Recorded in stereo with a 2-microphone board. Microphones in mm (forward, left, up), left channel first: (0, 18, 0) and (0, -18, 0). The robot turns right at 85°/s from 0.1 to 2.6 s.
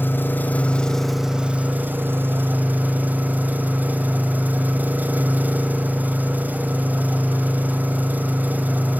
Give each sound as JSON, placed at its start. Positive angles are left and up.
{"t": 0.0, "sound": "an engine running", "azimuth_deg": 95, "distance_m": 1.6}